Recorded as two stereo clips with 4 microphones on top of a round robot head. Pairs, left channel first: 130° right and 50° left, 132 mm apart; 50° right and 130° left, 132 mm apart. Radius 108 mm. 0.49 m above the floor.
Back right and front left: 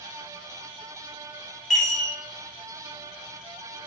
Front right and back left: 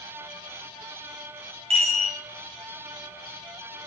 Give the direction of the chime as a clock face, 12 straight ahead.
7 o'clock.